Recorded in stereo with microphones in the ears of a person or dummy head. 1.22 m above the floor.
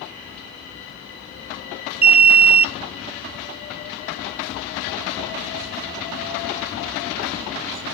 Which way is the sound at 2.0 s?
45° right (ahead or behind).